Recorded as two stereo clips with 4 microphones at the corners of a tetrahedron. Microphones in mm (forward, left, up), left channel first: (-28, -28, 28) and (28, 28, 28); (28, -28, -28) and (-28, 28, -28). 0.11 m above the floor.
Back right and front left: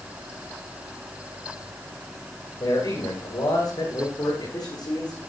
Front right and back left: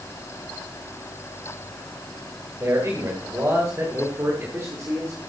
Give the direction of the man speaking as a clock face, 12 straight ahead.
6 o'clock.